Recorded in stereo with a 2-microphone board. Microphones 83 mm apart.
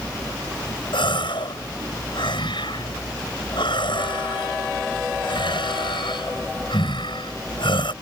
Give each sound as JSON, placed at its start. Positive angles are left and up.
{"t": 0.9, "sound": "a gasp", "side_deg": 80}